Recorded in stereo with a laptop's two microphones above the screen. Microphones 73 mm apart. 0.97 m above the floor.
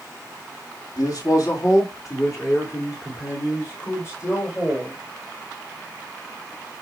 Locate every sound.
1.0 s a man speaking: 60° left (ahead or behind), 1.6 m; by 5.0 s 40° left (ahead or behind), 4.5 m